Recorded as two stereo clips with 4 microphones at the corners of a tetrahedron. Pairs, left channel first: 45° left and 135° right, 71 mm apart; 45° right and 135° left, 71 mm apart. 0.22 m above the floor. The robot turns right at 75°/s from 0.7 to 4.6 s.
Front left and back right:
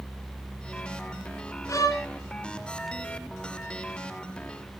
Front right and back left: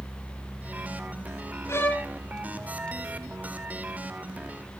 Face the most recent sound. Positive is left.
turn(degrees=-140)